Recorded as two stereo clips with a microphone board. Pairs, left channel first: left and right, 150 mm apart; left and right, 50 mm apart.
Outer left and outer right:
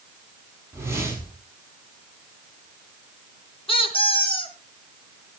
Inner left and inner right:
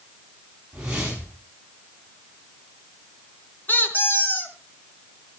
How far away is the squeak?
About 3.5 m.